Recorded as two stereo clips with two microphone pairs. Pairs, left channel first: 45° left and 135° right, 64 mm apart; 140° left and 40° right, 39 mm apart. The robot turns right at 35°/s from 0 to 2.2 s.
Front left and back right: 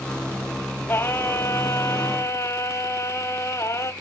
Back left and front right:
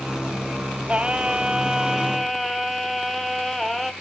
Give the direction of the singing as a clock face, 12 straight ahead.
12 o'clock.